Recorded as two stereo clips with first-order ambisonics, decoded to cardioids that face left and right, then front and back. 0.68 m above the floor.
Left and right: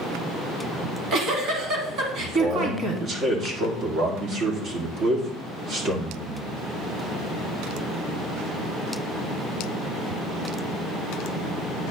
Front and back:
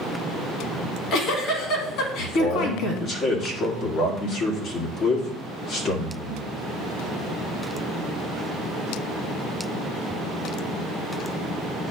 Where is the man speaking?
40° right, 1.7 m.